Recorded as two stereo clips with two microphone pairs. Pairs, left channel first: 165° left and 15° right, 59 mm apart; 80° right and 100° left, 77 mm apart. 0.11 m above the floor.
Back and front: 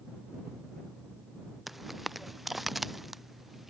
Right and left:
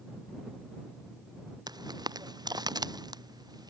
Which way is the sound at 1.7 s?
75° left.